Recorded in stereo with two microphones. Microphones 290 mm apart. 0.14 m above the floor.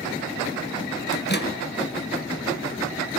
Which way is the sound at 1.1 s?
35° left (ahead or behind).